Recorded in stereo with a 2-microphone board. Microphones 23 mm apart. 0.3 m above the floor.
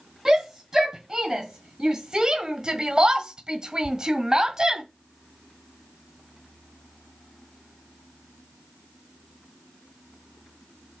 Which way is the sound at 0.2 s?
30° right (ahead or behind).